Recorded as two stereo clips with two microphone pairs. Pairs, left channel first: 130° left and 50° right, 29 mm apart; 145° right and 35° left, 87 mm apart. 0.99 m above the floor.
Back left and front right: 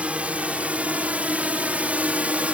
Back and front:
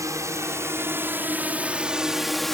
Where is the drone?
15° right; by 2.5 s 65° right.